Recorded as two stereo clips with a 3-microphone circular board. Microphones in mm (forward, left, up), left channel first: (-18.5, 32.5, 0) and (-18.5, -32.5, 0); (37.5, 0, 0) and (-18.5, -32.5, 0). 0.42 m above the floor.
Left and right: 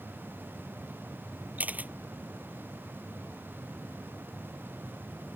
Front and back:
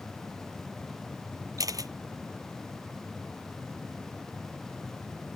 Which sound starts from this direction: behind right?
A camera shutter, at 1.6 s.